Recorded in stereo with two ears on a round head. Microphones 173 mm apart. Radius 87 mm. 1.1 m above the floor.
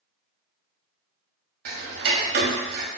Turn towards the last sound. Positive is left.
turn(degrees=-55)  # may be behind; listen again after turning